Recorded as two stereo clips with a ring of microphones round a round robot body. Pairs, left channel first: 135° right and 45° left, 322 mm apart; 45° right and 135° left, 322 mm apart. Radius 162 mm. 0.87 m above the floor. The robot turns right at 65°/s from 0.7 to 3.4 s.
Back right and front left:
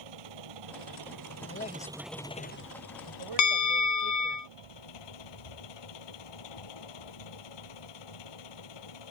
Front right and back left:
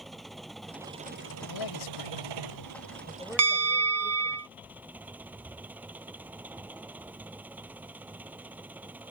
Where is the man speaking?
80° right; by 4.4 s 50° left.